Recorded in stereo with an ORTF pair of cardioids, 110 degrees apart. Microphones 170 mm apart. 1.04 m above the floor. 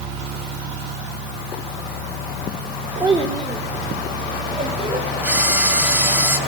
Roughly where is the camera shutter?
Ahead.